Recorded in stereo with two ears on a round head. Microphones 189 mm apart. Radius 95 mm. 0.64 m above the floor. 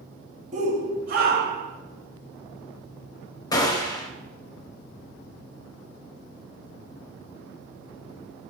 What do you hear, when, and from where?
0.5 s a shout: 35° right (ahead or behind), 1.1 m; by 1.7 s 55° right (ahead or behind), 1.3 m
3.5 s a gunshot: 20° left (ahead or behind), 0.9 m